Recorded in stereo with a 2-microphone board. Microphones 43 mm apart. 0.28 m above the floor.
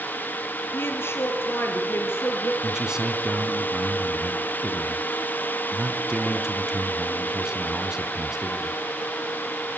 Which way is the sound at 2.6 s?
15° right (ahead or behind).